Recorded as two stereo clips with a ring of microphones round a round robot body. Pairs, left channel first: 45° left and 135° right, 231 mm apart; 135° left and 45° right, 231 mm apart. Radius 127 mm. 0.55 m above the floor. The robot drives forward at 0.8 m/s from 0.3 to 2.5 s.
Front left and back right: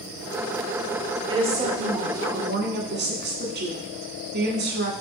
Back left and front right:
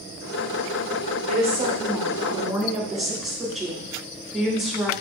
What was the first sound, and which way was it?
A woman speaking, 80° right.